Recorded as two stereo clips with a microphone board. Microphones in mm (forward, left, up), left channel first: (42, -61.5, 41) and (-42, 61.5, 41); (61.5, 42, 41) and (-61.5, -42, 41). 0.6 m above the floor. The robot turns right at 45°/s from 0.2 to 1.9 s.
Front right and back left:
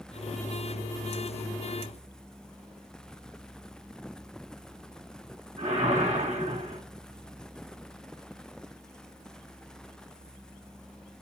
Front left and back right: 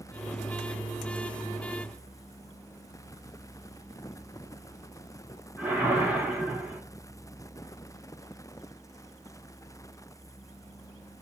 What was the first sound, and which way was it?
A whoosh, 140° left.